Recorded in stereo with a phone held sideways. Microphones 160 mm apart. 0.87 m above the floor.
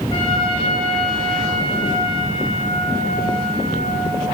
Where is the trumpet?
35° left (ahead or behind), 6.5 m.